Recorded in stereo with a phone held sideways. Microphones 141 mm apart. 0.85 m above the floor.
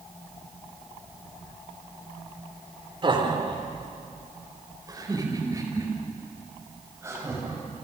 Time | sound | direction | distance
3.0 | laughter | 40° right (ahead or behind) | 3 m